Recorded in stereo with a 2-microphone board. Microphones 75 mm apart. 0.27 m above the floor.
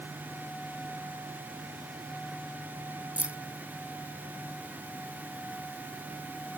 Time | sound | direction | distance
3.2 | keys jangling | 20° right (ahead or behind) | ?